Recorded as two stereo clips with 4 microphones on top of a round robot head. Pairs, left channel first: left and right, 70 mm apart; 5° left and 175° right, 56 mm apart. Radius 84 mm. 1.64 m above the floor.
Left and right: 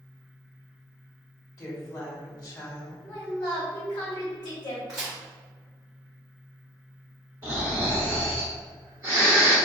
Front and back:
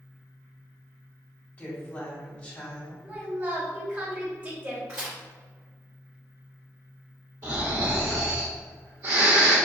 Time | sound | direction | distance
1.6 | a woman speaking | 65° left | 1.9 m
3.0 | a woman speaking | 125° left | 1.3 m
4.9 | a crack | 170° right | 1.1 m
7.4 | snoring | 150° right | 1.8 m